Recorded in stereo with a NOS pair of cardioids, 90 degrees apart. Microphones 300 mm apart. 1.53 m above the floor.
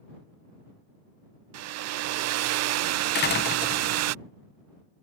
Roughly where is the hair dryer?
Ahead right.